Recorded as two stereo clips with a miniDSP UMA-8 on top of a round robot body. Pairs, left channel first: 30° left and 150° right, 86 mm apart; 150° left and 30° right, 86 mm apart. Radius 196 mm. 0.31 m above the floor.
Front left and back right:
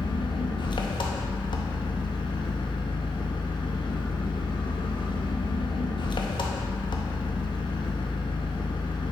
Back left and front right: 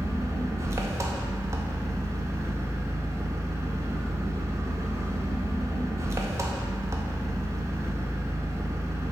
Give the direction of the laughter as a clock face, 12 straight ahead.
No laughter in this recording.